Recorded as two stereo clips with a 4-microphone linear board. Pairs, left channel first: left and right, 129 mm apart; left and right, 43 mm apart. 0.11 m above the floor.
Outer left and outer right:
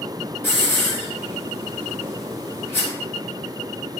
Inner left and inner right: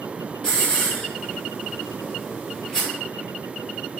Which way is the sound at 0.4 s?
20° left (ahead or behind).